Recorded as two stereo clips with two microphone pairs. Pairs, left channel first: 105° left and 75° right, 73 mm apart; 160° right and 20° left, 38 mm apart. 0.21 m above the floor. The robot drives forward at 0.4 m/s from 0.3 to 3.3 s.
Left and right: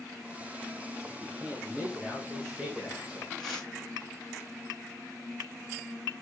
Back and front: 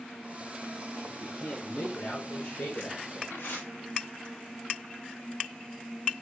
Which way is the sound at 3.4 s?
165° right.